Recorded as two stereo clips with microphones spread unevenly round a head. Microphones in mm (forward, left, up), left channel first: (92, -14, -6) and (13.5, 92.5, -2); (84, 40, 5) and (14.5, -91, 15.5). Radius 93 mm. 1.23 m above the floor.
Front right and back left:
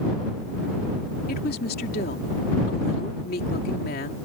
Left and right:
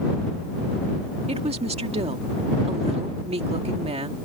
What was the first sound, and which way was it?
A woman speaking, 70° right.